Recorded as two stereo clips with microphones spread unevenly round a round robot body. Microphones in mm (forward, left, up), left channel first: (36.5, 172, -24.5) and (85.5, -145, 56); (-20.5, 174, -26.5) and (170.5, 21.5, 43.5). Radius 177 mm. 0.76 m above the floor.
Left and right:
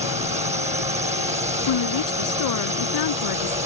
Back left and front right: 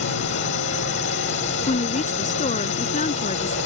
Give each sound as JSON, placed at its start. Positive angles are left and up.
{"t": 0.0, "sound": "a drone", "azimuth_deg": -155}
{"t": 1.7, "sound": "a woman speaking", "azimuth_deg": 80}